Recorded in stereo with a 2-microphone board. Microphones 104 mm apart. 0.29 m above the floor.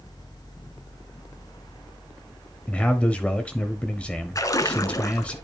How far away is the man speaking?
About 0.9 m.